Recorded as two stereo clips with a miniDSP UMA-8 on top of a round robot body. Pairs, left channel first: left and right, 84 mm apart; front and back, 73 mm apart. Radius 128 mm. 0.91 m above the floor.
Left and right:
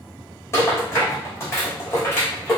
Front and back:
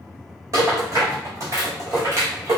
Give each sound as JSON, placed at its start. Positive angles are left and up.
{"t": 0.5, "sound": "a rattle", "azimuth_deg": 145, "distance_m": 1.9}